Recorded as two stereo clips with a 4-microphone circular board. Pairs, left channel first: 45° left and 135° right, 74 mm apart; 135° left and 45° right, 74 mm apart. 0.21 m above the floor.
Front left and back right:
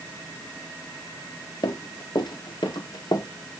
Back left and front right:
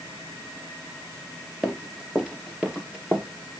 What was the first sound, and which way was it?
Running footsteps, 40° left.